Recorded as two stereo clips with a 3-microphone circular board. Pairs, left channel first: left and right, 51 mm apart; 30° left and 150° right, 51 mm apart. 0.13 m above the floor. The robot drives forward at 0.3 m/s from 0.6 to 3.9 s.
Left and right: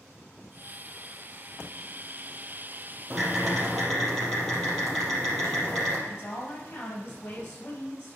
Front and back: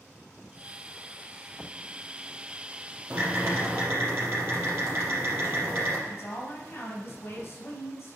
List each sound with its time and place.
3.1 s typing on a keyboard: 175° left, 4 m
6.1 s a woman speaking: 70° left, 3.5 m